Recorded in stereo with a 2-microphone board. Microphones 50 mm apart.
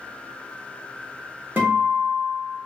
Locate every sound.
1.6 s a guitar: 45° right (ahead or behind), 0.9 m